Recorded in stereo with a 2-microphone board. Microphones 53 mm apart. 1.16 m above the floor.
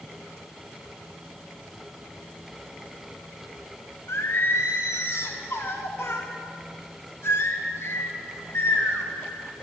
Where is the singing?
50° left (ahead or behind), 0.8 m.